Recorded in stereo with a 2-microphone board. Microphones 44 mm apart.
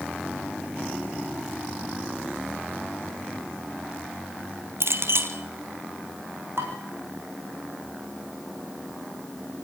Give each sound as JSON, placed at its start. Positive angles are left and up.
{"t": 4.8, "sound": "a clink", "side_deg": -70, "distance_m": 1.8}
{"t": 6.6, "sound": "dishes clattering", "side_deg": -60, "distance_m": 5.5}